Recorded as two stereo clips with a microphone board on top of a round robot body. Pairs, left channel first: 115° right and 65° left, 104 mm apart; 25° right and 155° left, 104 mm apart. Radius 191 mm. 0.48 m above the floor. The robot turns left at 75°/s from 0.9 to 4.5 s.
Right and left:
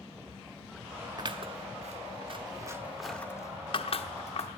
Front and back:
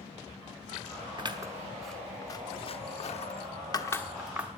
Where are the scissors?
115° left, 1.2 m; by 4.6 s 130° right, 1.2 m.